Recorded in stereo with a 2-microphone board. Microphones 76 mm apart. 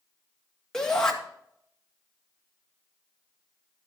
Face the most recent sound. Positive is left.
turn(degrees=10)  # may be behind; listen again after turning